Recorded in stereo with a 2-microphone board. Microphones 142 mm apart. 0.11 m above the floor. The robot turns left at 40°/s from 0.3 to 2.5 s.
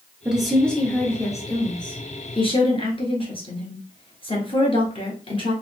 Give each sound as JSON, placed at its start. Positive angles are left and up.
{"t": 0.2, "sound": "a woman speaking", "azimuth_deg": -175, "distance_m": 1.4}